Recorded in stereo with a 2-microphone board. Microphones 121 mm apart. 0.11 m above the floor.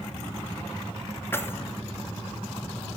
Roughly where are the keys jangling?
Centre.